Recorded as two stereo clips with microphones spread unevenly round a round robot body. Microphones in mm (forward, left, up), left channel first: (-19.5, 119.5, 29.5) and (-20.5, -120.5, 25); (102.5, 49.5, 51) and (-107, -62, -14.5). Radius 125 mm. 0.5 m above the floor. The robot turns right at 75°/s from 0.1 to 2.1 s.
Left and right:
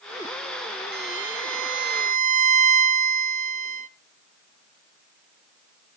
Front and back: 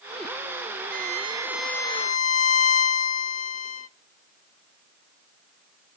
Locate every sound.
0.9 s a violin: 125° right, 0.9 m; by 3.9 s 40° right, 0.9 m